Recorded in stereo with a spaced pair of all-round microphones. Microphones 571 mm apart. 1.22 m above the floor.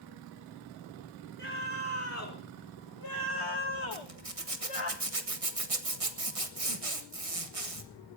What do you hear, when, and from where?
1.4 s a scream: 20° left (ahead or behind), 3 m; by 4.9 s 60° left (ahead or behind), 1.3 m
3.9 s a zipper: 70° right (ahead or behind), 1.6 m